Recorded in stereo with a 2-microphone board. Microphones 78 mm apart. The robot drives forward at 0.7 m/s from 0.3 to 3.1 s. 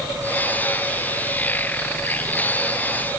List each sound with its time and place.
Only background noise.